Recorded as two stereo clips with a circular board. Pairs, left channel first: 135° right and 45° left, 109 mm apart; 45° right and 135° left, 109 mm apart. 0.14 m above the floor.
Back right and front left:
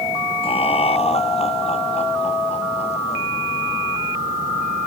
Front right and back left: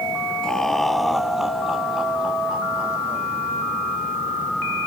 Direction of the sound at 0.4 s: 130° right.